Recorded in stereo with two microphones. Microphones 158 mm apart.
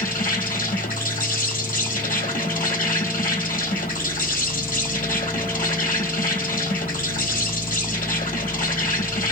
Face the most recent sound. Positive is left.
turn(degrees=65)  # may be behind; listen again after turning